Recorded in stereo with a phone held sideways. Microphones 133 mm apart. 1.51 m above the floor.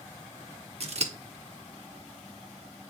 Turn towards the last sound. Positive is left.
turn(degrees=-50)  # may be behind; listen again after turning